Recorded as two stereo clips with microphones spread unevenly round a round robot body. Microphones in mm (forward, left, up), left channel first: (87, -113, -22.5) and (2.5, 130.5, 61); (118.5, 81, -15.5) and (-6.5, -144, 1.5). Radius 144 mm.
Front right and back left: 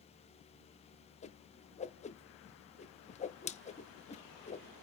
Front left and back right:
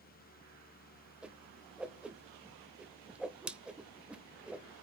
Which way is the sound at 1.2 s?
30° right.